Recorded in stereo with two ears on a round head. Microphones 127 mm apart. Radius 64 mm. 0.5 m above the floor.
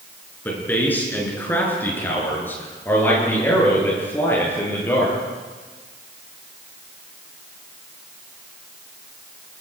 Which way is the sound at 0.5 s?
15° left (ahead or behind).